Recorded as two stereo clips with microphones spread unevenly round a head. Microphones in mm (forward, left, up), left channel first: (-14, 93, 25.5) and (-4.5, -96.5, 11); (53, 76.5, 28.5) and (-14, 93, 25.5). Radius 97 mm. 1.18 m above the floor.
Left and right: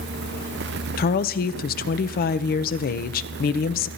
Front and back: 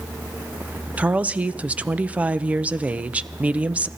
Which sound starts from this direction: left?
A woman speaking, at 1.0 s.